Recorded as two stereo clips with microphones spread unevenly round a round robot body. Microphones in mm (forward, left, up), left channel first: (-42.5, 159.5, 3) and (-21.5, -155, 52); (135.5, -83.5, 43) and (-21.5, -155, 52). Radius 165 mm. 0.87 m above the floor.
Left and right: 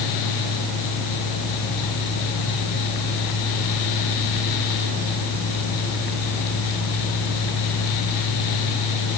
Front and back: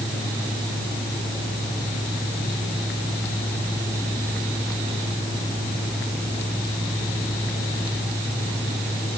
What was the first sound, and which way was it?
Only background noise.